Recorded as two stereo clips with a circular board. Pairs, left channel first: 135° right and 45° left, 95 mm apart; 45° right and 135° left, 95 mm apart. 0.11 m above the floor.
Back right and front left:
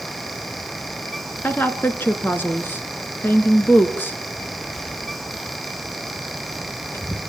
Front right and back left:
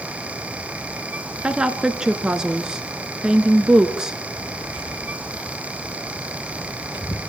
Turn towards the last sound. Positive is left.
turn(degrees=-75)